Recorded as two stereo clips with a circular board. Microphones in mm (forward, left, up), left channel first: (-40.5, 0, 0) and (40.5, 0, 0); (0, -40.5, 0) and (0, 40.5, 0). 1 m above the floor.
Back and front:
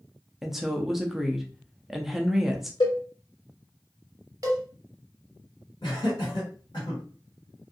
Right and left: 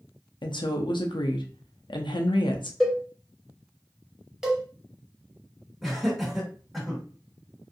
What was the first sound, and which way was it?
A woman speaking, 85° right.